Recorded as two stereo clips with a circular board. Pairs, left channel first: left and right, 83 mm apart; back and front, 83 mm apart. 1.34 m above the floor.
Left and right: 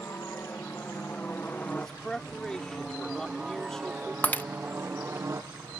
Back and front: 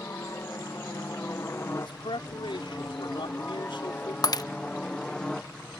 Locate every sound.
0.0 s a helicopter: 135° left; by 5.8 s 100° right
1.8 s a man speaking: 170° left
4.2 s breaking glass: 155° left